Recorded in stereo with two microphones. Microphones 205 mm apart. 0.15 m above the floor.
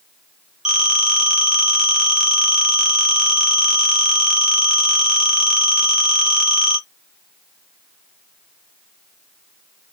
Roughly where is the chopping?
I don't hear chopping.